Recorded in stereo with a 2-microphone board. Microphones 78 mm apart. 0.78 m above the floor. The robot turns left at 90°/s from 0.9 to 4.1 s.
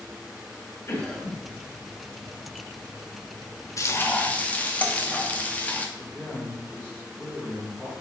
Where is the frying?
55° left, 1.1 m; by 5.9 s 25° left, 1.1 m.